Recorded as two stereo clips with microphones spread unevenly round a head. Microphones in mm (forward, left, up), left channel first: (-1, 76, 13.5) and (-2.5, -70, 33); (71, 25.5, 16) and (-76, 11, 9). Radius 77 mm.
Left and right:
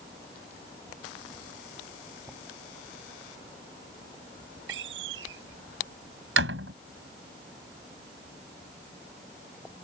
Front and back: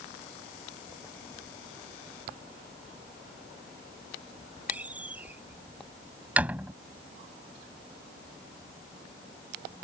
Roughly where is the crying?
No crying in this recording.